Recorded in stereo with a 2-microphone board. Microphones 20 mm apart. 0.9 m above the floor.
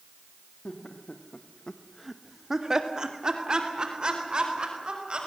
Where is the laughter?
70° left (ahead or behind), 2.0 m; by 5.2 s 50° right (ahead or behind), 5.5 m.